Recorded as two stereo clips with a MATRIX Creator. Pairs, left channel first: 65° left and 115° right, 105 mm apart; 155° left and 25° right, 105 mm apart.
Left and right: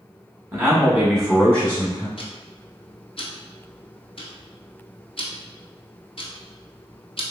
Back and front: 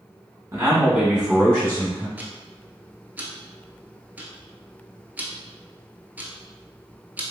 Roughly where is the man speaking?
Ahead right.